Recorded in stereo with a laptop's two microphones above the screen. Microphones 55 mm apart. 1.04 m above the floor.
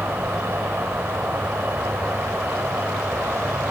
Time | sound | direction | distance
0.0 | an insect | 45° right (ahead or behind) | 1.4 m